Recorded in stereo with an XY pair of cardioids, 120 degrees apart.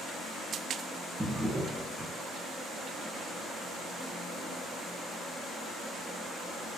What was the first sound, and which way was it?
A drawer, 5° right.